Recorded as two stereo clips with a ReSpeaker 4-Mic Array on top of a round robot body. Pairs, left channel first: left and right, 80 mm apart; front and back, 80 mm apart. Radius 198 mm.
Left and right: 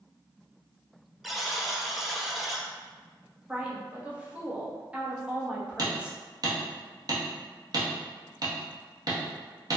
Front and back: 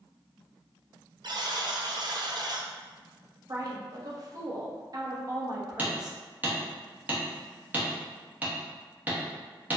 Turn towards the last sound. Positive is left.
turn(degrees=-115)